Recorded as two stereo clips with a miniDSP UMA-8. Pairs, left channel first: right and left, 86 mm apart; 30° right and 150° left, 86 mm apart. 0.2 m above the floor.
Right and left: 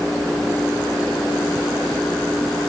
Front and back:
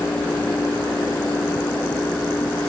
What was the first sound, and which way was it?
Only background noise.